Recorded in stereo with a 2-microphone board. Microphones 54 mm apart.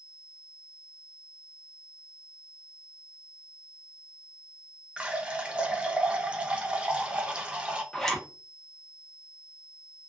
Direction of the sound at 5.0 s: 20° right (ahead or behind).